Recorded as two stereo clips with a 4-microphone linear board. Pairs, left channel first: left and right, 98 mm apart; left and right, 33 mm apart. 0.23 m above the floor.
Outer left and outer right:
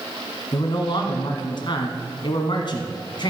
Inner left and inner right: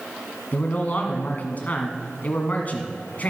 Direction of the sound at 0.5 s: 55° left (ahead or behind).